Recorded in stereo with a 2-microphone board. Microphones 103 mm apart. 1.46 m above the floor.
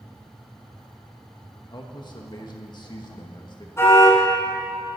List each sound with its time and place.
1.7 s a man speaking: 45° left (ahead or behind), 1.7 m
3.8 s a car horn: 25° left (ahead or behind), 6.5 m